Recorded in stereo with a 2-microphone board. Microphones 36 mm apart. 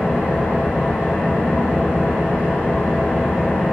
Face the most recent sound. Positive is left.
turn(degrees=-55)  # may be behind; listen again after turning